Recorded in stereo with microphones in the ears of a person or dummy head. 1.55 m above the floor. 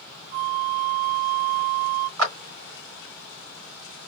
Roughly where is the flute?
Right.